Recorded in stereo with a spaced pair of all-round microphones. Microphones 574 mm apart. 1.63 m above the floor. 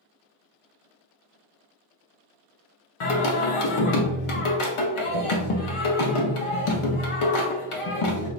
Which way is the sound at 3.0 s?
60° left (ahead or behind).